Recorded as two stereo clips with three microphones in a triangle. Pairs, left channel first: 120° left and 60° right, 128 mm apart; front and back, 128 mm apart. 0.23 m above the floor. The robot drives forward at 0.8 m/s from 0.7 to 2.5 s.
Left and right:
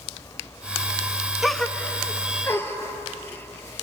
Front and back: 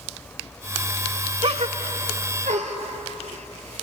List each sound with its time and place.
1.4 s a gasp: 150° right, 0.5 m; by 3.8 s 170° right, 1.3 m